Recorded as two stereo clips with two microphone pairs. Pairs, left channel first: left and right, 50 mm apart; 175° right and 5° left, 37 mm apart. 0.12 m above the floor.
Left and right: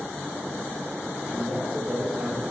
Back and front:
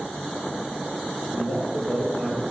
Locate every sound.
1.3 s a man speaking: 155° right, 2 m